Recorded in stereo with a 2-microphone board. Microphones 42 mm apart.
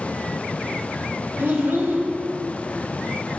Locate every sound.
1.4 s a child speaking: 60° right (ahead or behind), 1.7 m